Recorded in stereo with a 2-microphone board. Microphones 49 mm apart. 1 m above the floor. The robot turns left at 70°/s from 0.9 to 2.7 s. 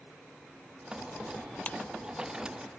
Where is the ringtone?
30° left (ahead or behind); by 1.8 s 25° left (ahead or behind).